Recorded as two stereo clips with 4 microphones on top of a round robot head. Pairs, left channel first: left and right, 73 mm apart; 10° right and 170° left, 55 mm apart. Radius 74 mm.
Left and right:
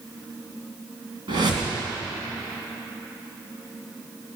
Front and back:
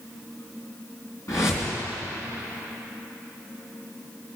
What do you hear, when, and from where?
1.3 s a whoosh: 55° right, 3 m